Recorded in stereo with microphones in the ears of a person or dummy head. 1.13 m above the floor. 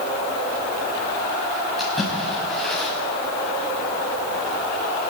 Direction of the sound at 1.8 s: Centre (ahead or behind).